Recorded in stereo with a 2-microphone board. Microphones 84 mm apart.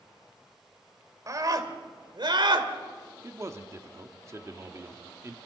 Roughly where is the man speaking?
Right.